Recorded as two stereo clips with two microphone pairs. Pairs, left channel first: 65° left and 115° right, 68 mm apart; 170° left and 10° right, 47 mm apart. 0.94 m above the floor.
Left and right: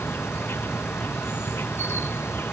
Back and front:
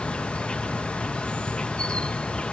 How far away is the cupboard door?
I don't hear a cupboard door.